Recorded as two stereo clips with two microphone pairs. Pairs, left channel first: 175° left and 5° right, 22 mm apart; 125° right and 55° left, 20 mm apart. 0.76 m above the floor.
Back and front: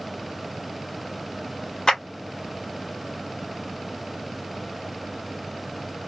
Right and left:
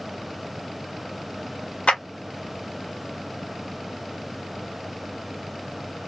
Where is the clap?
125° right, 1.2 m.